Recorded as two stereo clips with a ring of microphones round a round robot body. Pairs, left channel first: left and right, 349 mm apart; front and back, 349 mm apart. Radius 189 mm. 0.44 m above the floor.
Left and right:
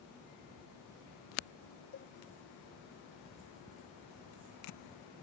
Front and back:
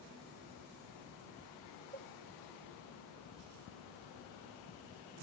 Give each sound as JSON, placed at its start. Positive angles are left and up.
{"t": 1.9, "sound": "a cowbell", "azimuth_deg": 155}